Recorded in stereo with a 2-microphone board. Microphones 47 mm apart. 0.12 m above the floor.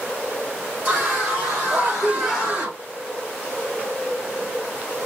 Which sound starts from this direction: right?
A scream, at 0.8 s.